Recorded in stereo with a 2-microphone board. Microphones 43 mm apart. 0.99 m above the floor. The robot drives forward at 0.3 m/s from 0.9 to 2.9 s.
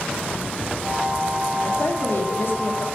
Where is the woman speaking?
55° left (ahead or behind), 1.3 m; by 2.9 s 60° left (ahead or behind), 1.3 m.